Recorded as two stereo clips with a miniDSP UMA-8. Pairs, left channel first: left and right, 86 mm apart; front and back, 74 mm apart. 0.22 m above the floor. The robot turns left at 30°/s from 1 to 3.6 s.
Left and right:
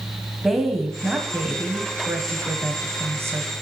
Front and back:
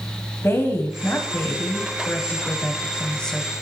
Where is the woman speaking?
5° right, 1.4 m; by 3.5 s 80° right, 1.4 m.